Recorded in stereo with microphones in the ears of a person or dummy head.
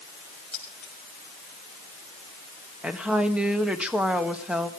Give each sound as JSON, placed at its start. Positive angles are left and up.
{"t": 0.5, "sound": "keys jangling", "side_deg": 10, "distance_m": 7.0}
{"t": 2.8, "sound": "a woman speaking", "side_deg": -10, "distance_m": 1.5}